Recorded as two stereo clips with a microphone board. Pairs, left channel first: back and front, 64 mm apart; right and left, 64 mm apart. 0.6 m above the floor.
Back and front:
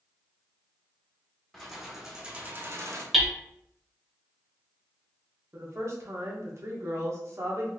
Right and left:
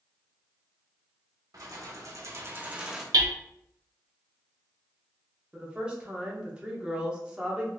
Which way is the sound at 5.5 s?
20° left.